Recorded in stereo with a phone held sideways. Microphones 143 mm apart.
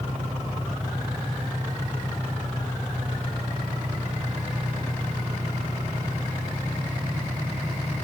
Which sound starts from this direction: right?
An engine running, at 0.0 s.